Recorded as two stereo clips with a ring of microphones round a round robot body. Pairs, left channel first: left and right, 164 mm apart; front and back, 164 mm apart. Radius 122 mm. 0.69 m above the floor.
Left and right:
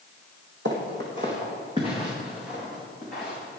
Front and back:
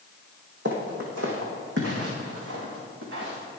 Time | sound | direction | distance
0.7 | footsteps | 135° right | 2.5 m